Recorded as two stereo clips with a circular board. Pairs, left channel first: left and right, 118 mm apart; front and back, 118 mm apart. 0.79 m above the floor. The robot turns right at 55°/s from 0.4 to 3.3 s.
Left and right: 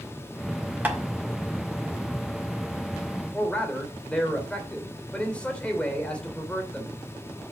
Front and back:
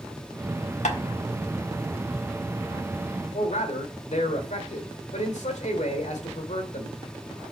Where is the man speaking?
10° left, 2.5 m.